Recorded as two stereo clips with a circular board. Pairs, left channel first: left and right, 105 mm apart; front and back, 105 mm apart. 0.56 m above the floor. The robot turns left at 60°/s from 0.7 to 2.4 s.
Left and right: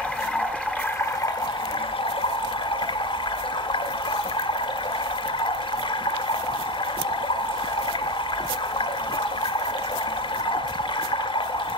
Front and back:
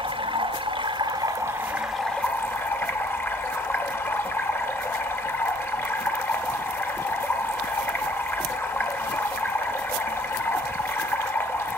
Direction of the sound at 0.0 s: 165° left.